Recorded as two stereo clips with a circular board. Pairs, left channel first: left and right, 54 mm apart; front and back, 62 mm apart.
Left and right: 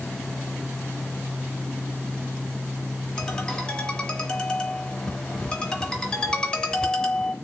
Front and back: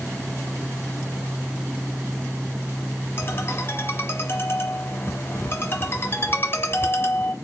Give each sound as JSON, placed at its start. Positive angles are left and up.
{"t": 3.2, "sound": "a ringtone", "azimuth_deg": 20, "distance_m": 1.2}